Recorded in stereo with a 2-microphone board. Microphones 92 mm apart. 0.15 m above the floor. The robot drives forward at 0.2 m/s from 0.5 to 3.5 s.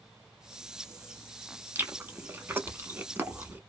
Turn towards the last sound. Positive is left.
turn(degrees=-25)  # may be behind; listen again after turning